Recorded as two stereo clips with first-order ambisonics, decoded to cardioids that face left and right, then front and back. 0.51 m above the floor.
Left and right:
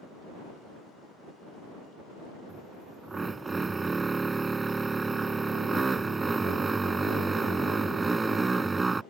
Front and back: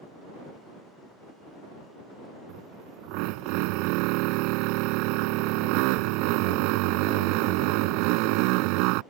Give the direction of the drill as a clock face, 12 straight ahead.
6 o'clock.